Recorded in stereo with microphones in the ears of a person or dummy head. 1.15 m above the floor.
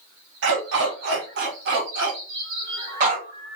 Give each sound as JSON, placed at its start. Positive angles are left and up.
{"t": 0.4, "sound": "a dog barking", "side_deg": -65, "distance_m": 4.0}